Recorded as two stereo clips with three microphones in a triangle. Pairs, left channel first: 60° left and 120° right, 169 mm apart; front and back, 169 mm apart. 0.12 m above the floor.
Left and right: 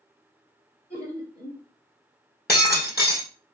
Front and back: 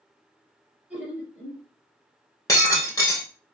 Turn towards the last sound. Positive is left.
turn(degrees=70)